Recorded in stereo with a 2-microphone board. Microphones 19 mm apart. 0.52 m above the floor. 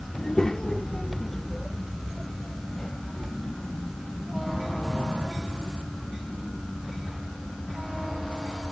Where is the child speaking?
35° left (ahead or behind); by 8.6 s centre (ahead or behind).